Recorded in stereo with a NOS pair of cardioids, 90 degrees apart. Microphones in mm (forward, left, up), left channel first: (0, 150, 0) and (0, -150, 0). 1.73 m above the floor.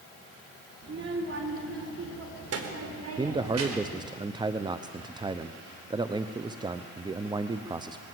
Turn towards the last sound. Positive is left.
turn(degrees=-15)